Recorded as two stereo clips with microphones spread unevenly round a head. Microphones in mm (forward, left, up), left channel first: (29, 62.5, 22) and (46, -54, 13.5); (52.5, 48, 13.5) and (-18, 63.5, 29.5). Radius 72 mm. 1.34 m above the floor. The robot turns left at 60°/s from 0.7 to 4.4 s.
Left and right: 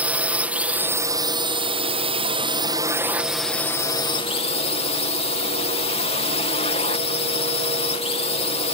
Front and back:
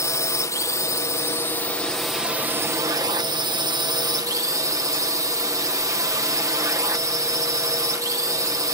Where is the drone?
10° right; by 8.8 s 130° left.